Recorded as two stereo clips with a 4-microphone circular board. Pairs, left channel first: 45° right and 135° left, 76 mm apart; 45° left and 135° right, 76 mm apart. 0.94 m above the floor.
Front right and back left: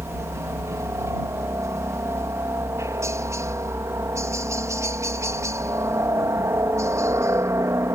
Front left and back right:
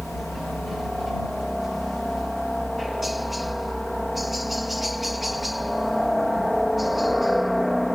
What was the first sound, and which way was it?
A helicopter, 135° left.